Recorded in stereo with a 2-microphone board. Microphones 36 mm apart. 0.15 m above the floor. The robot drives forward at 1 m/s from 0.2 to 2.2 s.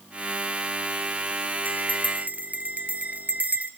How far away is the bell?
About 1.4 m.